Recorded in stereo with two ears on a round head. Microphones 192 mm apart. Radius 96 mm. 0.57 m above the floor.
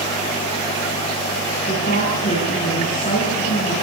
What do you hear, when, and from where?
1.7 s a woman speaking: 35° left (ahead or behind), 8.5 m